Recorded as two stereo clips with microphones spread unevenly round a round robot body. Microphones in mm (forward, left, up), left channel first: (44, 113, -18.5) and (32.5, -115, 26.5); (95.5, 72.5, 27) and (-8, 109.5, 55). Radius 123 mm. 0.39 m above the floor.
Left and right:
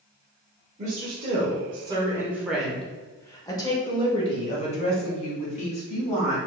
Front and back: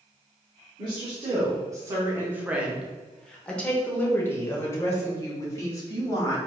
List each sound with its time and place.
0.8 s a woman speaking: 150° right, 1.1 m; by 6.4 s 35° left, 2.5 m